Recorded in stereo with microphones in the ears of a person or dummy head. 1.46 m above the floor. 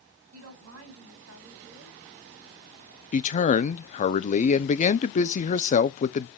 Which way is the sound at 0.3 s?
85° right.